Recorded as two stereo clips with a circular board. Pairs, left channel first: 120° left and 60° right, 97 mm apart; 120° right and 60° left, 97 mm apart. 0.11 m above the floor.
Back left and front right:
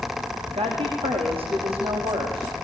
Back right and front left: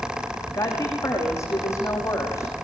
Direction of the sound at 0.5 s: 60° right.